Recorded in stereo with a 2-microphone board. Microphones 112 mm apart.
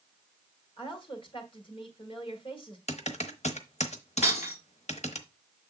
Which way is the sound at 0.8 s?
50° left (ahead or behind).